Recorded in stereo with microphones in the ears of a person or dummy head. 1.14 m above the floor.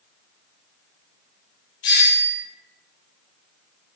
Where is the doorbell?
50° left (ahead or behind), 1.5 m.